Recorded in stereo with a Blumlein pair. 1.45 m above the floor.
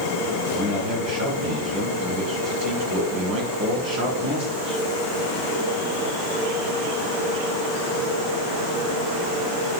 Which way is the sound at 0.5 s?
35° right.